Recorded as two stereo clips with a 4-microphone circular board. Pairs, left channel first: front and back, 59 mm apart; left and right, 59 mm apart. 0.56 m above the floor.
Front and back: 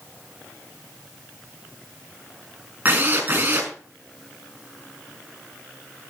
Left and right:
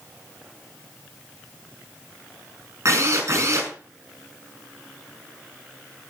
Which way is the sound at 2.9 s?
125° right.